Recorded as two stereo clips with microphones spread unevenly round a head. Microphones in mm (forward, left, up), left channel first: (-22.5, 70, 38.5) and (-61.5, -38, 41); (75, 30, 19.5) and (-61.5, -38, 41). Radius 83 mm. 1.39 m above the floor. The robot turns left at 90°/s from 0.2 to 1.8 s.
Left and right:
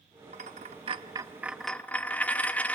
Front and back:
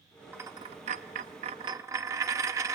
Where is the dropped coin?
85° right, 0.9 m; by 2.8 s 145° left, 0.9 m.